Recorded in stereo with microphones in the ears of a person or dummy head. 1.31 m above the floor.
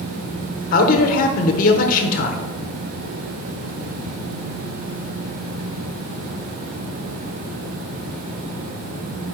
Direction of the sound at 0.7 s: 50° left (ahead or behind).